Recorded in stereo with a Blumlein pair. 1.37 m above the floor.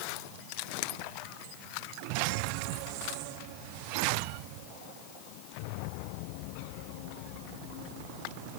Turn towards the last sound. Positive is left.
No sound to turn to.